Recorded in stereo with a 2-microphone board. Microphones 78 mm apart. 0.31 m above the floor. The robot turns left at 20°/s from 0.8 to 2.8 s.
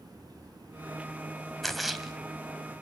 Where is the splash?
Centre (ahead or behind), 2.5 m; by 2.1 s 5° right (ahead or behind), 2.5 m.